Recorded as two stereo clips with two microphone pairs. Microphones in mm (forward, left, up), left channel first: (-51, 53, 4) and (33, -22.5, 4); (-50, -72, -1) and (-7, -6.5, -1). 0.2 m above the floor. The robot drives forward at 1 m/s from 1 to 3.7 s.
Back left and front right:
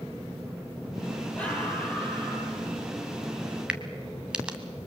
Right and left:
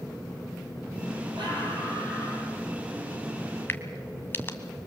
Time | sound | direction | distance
1.4 | a scream | 60° left | 6.5 m
3.7 | a crack | 115° right | 1.4 m